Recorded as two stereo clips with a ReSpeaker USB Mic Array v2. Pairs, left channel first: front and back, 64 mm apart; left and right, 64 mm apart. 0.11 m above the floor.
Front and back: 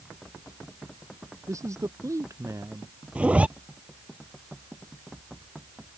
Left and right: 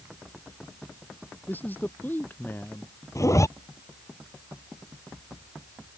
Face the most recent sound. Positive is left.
turn(degrees=110)